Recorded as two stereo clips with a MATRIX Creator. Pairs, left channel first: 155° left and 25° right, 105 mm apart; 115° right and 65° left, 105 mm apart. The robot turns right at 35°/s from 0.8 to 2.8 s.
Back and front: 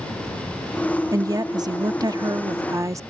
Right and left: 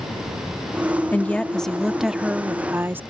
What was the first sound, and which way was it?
A woman speaking, 50° right.